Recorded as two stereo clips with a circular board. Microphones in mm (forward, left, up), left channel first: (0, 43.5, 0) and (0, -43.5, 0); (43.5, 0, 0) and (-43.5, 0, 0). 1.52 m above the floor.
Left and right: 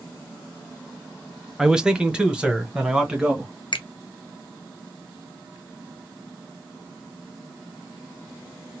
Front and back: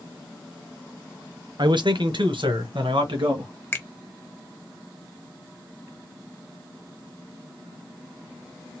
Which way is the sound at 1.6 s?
170° right.